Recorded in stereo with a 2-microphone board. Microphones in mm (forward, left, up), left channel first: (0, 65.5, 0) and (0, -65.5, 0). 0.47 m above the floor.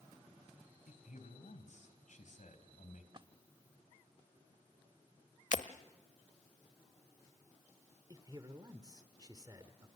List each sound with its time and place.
0.9 s a man speaking: 70° left (ahead or behind), 3.5 m
3.1 s a splash: 40° right (ahead or behind), 0.7 m
5.5 s breaking glass: 70° left (ahead or behind), 1.0 m
8.1 s a man speaking: 30° right (ahead or behind), 1.5 m